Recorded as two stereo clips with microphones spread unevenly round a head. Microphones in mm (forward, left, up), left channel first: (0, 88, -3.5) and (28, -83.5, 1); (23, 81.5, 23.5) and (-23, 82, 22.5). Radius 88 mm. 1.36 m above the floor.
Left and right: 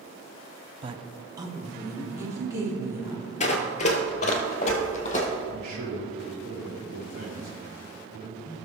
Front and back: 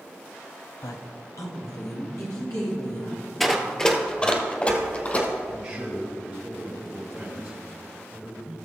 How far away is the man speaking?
About 3.5 m.